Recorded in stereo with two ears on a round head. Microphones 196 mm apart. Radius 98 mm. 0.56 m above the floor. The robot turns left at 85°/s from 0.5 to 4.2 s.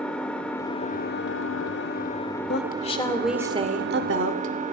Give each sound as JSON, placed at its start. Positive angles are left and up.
{"t": 0.0, "sound": "an engine running", "azimuth_deg": 175, "distance_m": 1.4}
{"t": 2.5, "sound": "a woman speaking", "azimuth_deg": 65, "distance_m": 1.5}